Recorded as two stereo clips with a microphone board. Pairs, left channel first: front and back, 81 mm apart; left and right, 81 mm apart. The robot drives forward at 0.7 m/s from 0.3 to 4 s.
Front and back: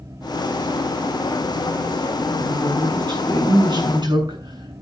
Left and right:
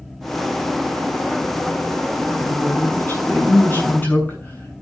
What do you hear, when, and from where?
2.4 s a woman speaking: 150° left, 6.5 m; by 4.8 s 155° left, 7.5 m